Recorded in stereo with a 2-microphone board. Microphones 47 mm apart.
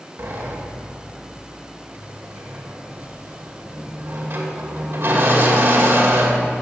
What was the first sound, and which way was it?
A sliding door, 60° right (ahead or behind).